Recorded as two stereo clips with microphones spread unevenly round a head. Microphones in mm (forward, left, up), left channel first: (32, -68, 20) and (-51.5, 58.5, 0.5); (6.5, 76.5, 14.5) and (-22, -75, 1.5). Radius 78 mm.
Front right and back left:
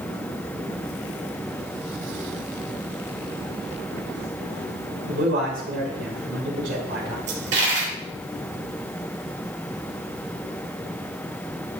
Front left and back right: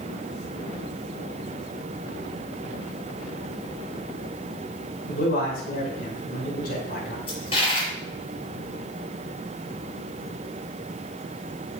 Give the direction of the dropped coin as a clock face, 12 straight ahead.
8 o'clock.